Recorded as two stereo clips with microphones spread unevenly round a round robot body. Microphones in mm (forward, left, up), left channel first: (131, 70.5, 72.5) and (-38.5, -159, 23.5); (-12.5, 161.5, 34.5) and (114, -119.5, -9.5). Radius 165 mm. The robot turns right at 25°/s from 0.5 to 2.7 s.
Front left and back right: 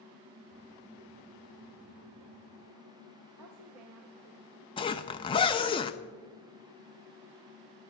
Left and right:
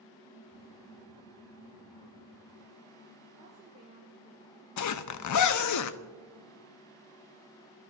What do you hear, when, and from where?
3.4 s a woman speaking: 130° right, 1.8 m
4.8 s a zipper: 130° left, 0.6 m